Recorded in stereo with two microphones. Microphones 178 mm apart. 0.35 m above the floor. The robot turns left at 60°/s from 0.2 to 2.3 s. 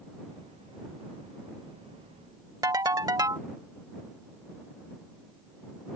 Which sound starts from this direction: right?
A ringtone, at 2.6 s.